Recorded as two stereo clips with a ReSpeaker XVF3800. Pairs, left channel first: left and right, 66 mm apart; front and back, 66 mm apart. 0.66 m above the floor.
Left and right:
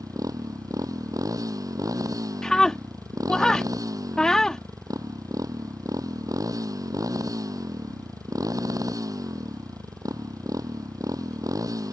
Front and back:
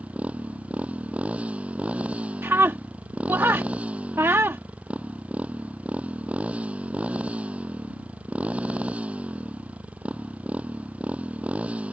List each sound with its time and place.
0.0 s a motorcycle: 110° right
2.4 s a scream: 165° left